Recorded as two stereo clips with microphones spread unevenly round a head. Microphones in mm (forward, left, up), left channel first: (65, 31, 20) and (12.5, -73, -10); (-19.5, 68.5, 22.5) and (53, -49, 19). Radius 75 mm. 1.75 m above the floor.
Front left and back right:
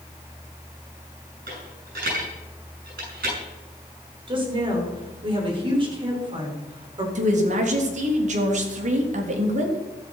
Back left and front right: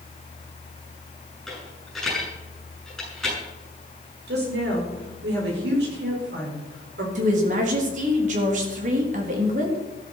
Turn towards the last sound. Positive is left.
turn(degrees=-100)